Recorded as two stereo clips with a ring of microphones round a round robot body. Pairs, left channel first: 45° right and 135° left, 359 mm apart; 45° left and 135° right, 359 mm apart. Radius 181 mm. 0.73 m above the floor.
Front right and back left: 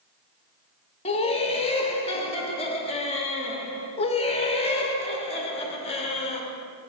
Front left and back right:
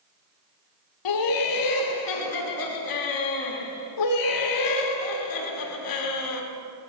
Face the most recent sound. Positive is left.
turn(degrees=25)